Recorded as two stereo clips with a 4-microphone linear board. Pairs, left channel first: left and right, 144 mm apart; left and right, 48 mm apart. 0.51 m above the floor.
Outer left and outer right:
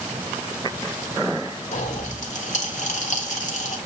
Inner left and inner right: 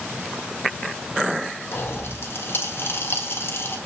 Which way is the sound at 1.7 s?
55° left (ahead or behind).